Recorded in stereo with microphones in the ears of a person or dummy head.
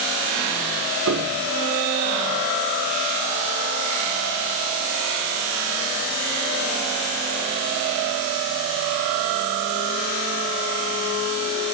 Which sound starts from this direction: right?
A piano, at 1.1 s.